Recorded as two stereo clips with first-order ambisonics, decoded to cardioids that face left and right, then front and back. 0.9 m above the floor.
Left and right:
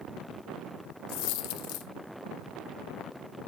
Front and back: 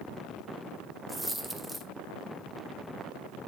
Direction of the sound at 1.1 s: 95° left.